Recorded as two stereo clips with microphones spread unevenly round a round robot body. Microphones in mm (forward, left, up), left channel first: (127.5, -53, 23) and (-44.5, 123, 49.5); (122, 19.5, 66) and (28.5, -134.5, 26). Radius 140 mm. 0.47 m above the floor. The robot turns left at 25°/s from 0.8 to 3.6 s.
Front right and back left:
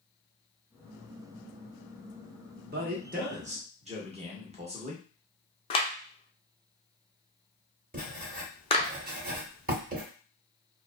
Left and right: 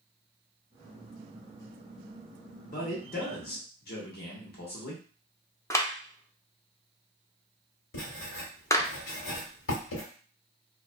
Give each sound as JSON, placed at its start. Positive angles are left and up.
{"t": 2.7, "sound": "a man speaking", "azimuth_deg": 95, "distance_m": 1.0}
{"t": 5.7, "sound": "a clap", "azimuth_deg": -25, "distance_m": 0.6}
{"t": 7.9, "sound": "writing", "azimuth_deg": 80, "distance_m": 1.2}